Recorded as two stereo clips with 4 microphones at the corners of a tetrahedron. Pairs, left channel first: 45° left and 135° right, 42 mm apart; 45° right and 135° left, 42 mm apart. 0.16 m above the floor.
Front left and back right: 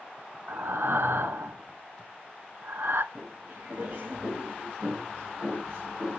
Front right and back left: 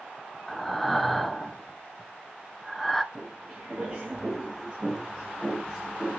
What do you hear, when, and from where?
0.5 s breathing: 130° right, 0.6 m
3.1 s footsteps: 165° right, 6 m; by 6.2 s 150° right, 5 m